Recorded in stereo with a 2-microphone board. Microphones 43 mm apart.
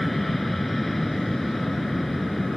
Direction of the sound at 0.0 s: 5° left (ahead or behind).